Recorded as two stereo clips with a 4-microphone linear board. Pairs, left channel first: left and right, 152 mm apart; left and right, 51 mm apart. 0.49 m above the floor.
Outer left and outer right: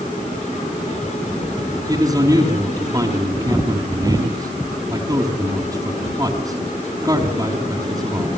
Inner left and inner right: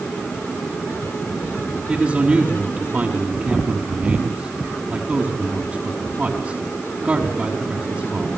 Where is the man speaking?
20° right (ahead or behind), 5 m.